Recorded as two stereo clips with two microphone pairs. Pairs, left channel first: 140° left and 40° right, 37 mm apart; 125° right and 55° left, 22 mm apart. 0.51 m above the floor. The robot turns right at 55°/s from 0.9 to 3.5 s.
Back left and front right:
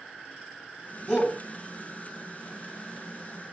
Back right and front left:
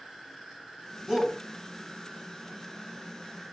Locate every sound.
1.1 s a shout: 90° left, 1.8 m; by 1.4 s 105° left, 1.8 m